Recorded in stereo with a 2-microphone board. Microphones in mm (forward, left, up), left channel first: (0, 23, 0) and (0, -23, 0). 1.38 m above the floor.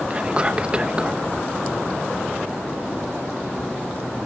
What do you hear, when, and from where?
0.1 s whispering: 20° right (ahead or behind)